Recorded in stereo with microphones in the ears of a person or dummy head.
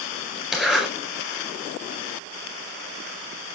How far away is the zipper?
About 5 m.